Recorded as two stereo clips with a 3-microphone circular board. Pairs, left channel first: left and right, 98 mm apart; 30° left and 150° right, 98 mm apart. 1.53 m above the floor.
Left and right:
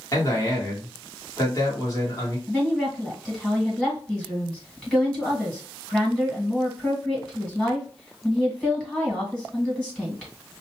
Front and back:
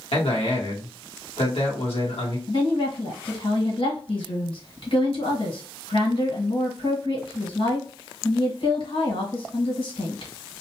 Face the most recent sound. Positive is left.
turn(degrees=10)